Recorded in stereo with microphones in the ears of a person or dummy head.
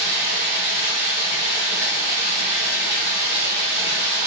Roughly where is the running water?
Right.